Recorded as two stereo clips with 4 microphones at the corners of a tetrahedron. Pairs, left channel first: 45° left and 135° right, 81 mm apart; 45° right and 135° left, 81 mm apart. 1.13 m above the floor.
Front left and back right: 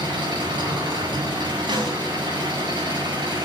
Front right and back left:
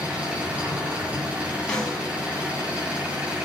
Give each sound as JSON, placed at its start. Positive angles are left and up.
{"t": 0.0, "sound": "an engine running", "azimuth_deg": -150, "distance_m": 7.0}
{"t": 1.7, "sound": "a snare drum", "azimuth_deg": -125, "distance_m": 4.5}